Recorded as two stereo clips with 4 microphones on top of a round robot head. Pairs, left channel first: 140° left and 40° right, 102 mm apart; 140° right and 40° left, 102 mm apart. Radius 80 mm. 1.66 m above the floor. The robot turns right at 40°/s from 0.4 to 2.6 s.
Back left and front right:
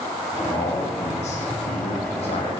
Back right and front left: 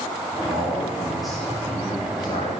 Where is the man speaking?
100° left, 3 m; by 2.5 s straight behind, 3 m.